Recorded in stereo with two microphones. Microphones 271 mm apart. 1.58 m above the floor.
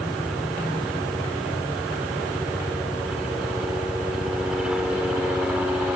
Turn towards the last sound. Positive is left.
turn(degrees=-5)  # may be behind; listen again after turning